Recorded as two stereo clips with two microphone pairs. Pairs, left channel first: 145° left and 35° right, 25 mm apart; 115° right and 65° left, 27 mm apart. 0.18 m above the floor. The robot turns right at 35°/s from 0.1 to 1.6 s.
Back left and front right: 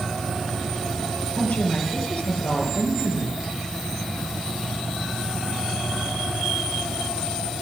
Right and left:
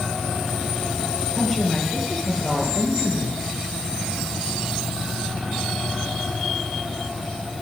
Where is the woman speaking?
160° left, 4.5 m; by 3.4 s 170° left, 4.5 m.